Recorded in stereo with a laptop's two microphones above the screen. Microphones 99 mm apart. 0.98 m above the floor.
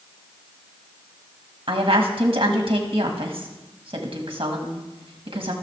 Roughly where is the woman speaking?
Right.